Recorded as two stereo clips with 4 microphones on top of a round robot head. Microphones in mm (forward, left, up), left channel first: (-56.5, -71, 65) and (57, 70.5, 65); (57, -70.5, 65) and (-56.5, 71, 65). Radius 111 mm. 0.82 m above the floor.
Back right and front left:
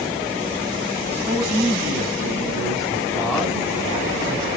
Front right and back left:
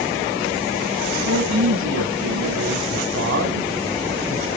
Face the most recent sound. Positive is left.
turn(degrees=145)